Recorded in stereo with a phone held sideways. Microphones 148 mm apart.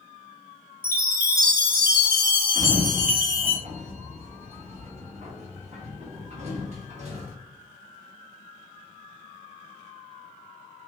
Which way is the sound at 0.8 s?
75° right (ahead or behind).